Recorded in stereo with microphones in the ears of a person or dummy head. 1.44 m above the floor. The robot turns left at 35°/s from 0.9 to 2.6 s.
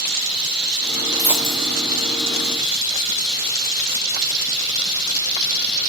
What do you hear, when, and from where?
0.0 s running water: 110° right, 8 m; by 5.9 s 170° right, 8 m
1.2 s a dropped coin: 10° right (ahead or behind), 2.5 m; by 1.8 s 30° right (ahead or behind), 2.5 m